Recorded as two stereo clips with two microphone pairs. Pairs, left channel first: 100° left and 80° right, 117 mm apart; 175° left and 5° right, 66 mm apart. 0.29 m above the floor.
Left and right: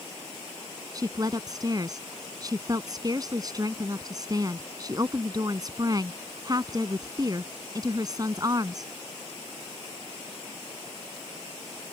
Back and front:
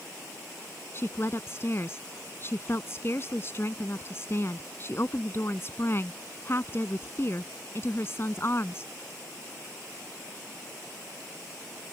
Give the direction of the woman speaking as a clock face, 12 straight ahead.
5 o'clock.